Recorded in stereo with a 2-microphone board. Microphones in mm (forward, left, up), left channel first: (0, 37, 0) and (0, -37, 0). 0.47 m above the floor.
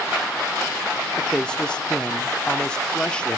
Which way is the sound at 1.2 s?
15° left (ahead or behind).